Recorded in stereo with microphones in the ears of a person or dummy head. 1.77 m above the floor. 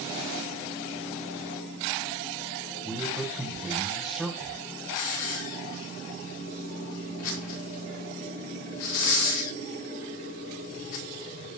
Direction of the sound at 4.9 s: 90° left.